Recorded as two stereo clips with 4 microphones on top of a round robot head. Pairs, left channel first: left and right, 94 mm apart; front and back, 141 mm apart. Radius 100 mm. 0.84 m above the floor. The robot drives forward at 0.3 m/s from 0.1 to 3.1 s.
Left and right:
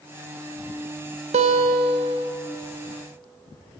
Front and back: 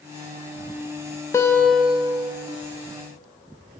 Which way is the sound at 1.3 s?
75° right.